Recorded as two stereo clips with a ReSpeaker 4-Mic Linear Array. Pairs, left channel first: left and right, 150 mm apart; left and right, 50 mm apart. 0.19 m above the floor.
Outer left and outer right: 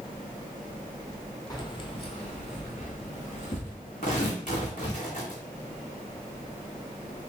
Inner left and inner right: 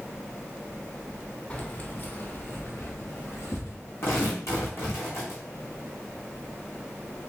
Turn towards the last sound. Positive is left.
turn(degrees=55)  # may be behind; listen again after turning